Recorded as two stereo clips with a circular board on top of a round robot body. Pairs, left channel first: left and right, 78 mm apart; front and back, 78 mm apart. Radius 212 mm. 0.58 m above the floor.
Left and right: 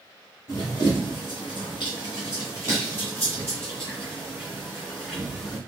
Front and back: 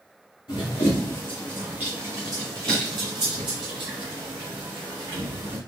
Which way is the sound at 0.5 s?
30° left.